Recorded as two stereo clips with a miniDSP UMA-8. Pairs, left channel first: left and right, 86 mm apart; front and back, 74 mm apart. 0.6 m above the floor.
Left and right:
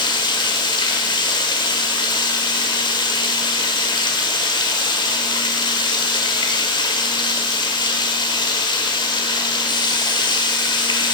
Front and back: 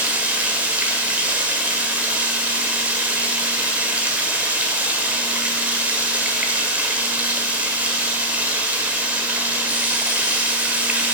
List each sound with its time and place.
0.0 s running water: 110° left, 1.7 m